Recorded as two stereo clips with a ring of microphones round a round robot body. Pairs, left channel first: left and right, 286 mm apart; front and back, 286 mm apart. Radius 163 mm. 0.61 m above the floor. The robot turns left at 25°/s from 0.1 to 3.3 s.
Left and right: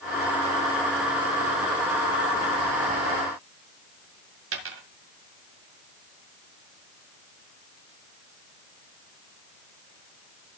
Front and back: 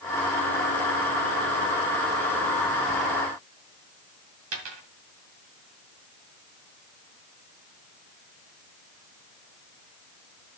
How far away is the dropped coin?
About 2 m.